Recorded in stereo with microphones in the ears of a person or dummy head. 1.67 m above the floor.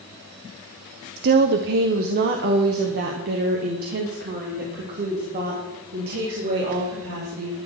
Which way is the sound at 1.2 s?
50° right (ahead or behind).